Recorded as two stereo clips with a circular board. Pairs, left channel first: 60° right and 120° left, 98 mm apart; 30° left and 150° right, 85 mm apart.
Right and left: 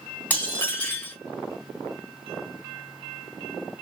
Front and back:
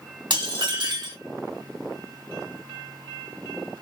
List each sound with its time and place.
0.3 s dishes clattering: 130° right, 1.8 m